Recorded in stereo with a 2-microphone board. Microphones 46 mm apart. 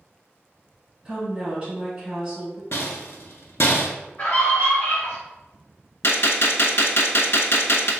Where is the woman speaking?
15° right (ahead or behind), 1.9 m.